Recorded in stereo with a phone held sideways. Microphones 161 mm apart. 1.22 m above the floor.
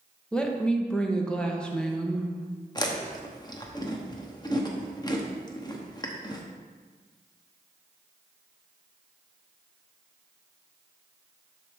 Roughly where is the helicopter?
No helicopter in this recording.